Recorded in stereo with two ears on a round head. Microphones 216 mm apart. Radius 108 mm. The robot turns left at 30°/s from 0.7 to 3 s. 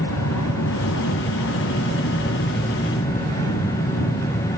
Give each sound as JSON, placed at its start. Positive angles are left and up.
{"t": 0.0, "sound": "an aircraft", "side_deg": 70}